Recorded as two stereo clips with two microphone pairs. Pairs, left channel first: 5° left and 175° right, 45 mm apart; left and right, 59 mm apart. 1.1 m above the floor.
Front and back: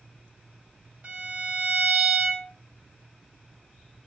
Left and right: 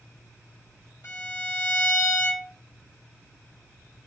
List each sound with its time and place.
1.0 s a violin: 125° left, 1.6 m